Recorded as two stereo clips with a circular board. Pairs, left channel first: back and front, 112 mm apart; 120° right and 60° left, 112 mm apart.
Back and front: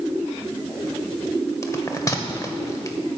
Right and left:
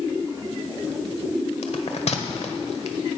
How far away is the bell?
About 1.2 m.